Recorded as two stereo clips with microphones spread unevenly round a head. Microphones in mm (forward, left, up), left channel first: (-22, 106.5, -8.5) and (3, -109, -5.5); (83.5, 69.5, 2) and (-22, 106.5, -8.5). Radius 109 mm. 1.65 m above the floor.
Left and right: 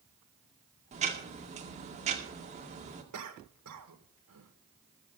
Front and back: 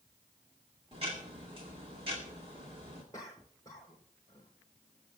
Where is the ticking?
140° right, 2 m.